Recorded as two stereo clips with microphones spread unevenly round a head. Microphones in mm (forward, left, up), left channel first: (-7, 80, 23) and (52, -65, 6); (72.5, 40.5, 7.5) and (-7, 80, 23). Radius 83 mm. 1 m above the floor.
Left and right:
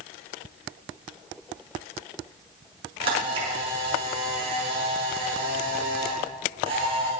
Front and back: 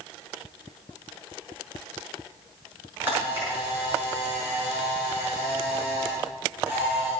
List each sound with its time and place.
3.0 s a camera shutter: 130° right, 6 m